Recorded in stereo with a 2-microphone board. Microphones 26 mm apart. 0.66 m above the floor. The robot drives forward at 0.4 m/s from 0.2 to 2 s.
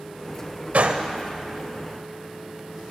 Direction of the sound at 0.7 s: 65° right (ahead or behind).